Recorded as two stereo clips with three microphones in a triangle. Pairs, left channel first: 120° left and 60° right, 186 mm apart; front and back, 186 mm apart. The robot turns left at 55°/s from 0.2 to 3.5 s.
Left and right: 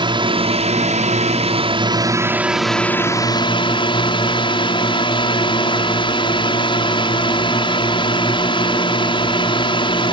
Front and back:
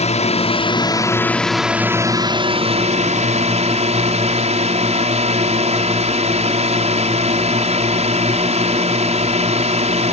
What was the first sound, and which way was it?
A drone, 15° right.